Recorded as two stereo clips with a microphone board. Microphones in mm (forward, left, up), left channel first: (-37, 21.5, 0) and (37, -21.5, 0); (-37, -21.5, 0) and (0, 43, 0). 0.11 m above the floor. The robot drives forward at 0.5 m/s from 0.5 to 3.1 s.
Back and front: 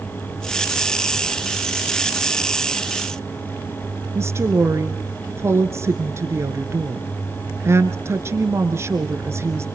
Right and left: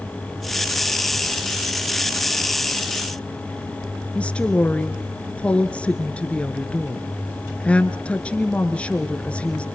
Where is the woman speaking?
55° right, 1.5 m.